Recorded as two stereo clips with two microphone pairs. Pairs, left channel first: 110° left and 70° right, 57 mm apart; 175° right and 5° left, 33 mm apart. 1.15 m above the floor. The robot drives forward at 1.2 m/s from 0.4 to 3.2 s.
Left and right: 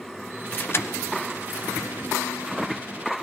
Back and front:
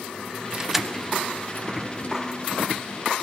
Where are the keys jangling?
55° left, 0.7 m; by 2.1 s 165° left, 1.7 m.